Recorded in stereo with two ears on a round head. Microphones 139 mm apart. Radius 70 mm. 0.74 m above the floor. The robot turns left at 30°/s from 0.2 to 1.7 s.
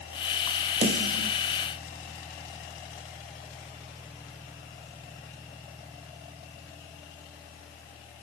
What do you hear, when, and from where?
0.8 s a snare drum: 50° right (ahead or behind), 3 m; by 1.3 s 65° right (ahead or behind), 3 m